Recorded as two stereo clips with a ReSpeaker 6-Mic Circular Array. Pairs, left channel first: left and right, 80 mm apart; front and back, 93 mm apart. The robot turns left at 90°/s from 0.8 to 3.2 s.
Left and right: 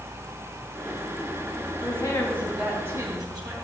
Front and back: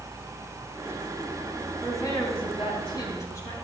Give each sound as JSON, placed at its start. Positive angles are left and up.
{"t": 1.8, "sound": "a woman speaking", "azimuth_deg": 70, "distance_m": 3.5}